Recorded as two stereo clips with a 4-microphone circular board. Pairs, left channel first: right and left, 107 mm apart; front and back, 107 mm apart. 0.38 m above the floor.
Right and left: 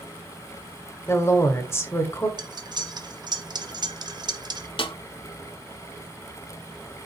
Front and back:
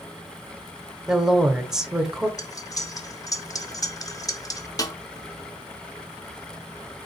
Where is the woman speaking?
105° right, 0.9 m.